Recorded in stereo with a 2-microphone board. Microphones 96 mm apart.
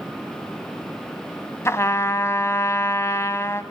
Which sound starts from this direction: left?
A trumpet, at 1.6 s.